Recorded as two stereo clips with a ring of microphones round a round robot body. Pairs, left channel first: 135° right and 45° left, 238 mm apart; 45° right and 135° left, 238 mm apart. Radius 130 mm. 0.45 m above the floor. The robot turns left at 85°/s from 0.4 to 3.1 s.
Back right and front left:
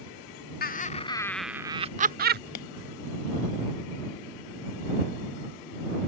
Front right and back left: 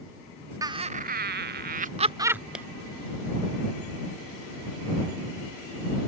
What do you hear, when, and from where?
0.6 s laughter: 155° right; by 2.4 s 50° left
2.5 s a clap: 140° right; by 2.6 s 145° right